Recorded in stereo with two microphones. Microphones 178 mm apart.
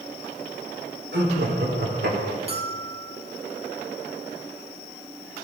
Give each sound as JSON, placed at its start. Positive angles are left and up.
{"t": 1.1, "sound": "laughter", "side_deg": -75, "distance_m": 3.5}
{"t": 2.5, "sound": "a bell", "side_deg": -35, "distance_m": 1.9}